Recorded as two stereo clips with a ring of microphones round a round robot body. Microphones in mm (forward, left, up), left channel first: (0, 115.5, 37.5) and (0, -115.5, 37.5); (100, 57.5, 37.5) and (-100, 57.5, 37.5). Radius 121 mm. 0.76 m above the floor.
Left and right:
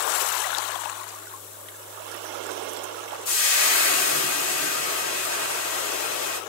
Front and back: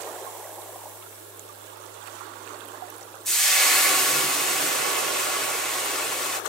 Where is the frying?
85° left, 1.4 m.